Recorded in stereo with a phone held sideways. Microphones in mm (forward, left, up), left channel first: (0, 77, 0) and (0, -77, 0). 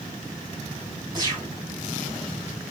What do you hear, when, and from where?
1.1 s a gunshot: 30° right (ahead or behind), 1.6 m